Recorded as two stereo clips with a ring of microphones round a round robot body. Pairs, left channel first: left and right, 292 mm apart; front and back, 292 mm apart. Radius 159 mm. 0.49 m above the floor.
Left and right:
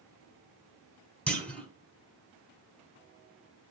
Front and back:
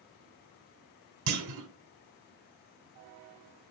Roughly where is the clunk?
Behind.